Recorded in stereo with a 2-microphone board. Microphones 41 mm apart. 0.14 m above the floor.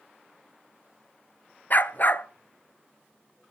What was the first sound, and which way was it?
A dog barking, 45° left (ahead or behind).